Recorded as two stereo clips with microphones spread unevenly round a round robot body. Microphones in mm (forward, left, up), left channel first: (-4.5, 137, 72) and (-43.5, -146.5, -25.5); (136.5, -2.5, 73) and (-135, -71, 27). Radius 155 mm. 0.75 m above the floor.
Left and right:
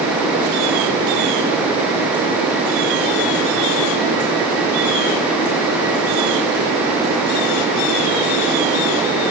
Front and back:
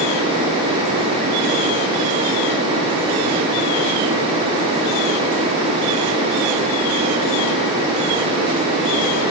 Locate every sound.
Only background noise.